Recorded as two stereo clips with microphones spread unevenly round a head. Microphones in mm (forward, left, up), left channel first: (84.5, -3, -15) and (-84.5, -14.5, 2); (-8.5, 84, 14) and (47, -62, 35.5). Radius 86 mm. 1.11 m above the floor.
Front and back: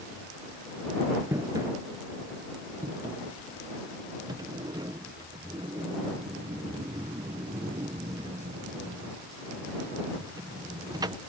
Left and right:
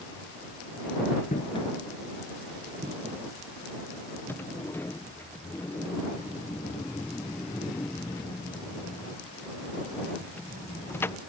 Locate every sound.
1.3 s footsteps: 130° left; by 4.6 s 110° right
4.3 s a sliding door: 135° left